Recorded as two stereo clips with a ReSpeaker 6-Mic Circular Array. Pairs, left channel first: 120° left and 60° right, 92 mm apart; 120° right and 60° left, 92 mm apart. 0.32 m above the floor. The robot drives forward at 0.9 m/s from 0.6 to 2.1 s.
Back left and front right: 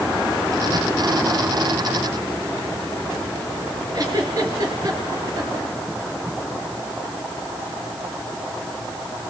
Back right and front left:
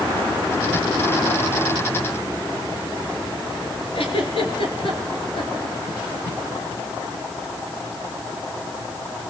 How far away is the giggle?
About 3 m.